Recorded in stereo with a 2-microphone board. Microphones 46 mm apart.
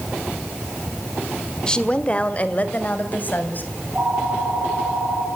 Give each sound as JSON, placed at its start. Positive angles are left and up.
{"t": 1.7, "sound": "a woman speaking", "side_deg": 20, "distance_m": 1.5}
{"t": 3.8, "sound": "a phone ringing", "side_deg": -30, "distance_m": 8.0}